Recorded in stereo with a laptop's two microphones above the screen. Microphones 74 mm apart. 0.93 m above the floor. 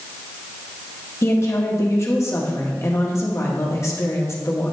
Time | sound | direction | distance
1.2 | a woman speaking | 40° left (ahead or behind) | 1.5 m